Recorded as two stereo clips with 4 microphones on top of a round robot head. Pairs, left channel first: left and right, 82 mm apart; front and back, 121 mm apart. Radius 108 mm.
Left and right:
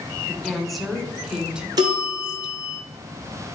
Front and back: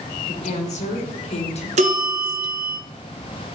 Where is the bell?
140° right, 2.5 m.